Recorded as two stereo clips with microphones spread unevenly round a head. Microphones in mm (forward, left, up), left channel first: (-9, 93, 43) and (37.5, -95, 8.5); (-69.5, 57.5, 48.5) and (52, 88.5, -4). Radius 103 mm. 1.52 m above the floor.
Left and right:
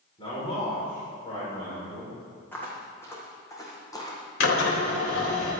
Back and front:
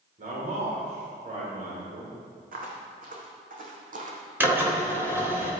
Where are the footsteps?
25° left, 4 m; by 4.2 s 40° left, 3.5 m.